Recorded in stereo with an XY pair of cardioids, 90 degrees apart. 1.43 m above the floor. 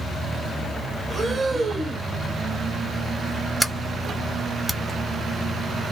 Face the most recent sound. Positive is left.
turn(degrees=0)